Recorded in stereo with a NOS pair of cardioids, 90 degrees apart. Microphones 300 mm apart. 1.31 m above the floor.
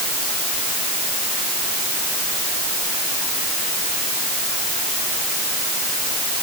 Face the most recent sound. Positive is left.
No sound to turn to.